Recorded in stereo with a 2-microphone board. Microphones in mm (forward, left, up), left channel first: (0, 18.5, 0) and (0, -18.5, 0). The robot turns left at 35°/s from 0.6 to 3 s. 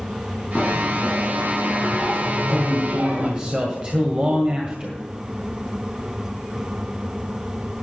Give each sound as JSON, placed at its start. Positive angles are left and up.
{"t": 0.6, "sound": "a bell", "azimuth_deg": 35, "distance_m": 5.0}
{"t": 2.3, "sound": "a man speaking", "side_deg": -20, "distance_m": 1.8}